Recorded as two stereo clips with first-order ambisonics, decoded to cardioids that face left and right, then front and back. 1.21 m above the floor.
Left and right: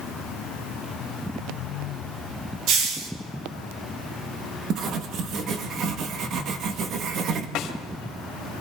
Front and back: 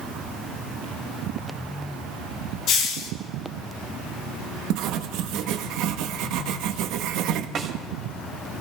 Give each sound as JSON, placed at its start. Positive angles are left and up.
{"t": 2.7, "sound": "a hiss", "azimuth_deg": -50, "distance_m": 2.0}
{"t": 4.7, "sound": "writing", "azimuth_deg": -145, "distance_m": 1.1}
{"t": 7.5, "sound": "a snare drum", "azimuth_deg": 125, "distance_m": 2.5}